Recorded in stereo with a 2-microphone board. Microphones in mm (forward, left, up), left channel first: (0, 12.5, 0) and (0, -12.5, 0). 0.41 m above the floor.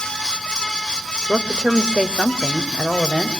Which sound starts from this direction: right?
A woman speaking, at 1.3 s.